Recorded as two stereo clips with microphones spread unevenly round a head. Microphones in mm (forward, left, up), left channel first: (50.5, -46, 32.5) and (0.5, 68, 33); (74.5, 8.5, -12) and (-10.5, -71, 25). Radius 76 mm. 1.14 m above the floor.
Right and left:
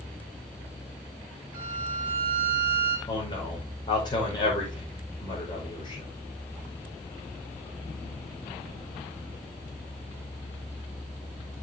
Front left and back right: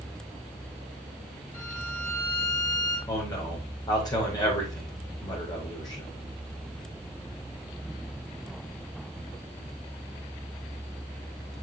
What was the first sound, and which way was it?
A violin, 40° left.